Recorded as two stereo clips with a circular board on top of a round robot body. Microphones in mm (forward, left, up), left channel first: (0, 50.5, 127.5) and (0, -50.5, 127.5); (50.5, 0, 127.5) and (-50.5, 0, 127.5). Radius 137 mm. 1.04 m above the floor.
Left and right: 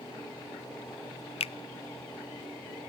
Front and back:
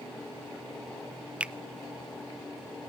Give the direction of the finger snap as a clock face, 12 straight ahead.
9 o'clock.